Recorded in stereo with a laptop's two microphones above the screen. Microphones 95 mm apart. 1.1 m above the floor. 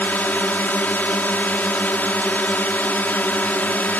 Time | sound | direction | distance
0.0 | a drone | 20° left (ahead or behind) | ?